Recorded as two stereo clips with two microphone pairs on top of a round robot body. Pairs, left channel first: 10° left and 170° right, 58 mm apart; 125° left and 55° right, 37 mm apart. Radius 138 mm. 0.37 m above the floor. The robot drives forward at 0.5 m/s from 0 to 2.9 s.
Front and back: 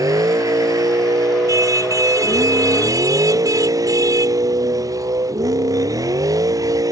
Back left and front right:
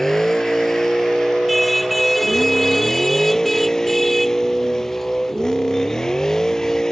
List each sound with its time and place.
0.0 s a vehicle: 155° right; by 6.9 s 160° right
1.5 s a car horn: 145° right